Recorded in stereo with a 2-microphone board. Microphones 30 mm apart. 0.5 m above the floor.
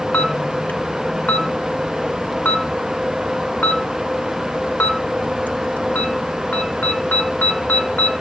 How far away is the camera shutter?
About 1.1 m.